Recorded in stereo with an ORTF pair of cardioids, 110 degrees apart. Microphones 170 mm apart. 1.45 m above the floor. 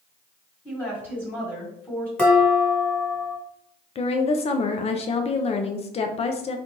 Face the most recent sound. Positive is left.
turn(degrees=40)